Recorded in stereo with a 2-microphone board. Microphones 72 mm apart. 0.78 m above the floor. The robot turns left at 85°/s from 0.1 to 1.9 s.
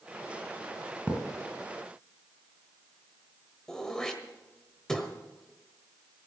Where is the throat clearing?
10° left (ahead or behind), 1.4 m.